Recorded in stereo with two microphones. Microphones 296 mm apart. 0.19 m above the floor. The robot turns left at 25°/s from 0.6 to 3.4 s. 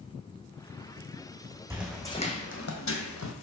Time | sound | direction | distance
1.7 | footsteps | 10° right (ahead or behind) | 0.9 m